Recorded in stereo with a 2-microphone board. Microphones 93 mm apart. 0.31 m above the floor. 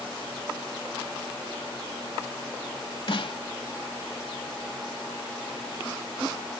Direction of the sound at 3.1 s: 60° left (ahead or behind).